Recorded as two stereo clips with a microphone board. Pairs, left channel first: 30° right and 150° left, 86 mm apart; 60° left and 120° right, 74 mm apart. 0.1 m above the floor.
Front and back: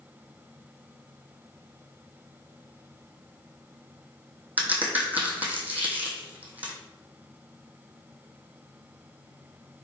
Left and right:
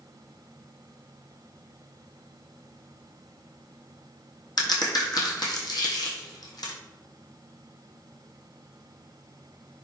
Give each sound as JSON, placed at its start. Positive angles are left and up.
{"t": 4.6, "sound": "a crack", "azimuth_deg": 80, "distance_m": 1.1}